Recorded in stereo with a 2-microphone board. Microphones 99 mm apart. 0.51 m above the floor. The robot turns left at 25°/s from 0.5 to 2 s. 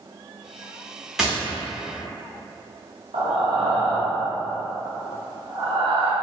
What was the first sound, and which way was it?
Tapping, 5° right (ahead or behind).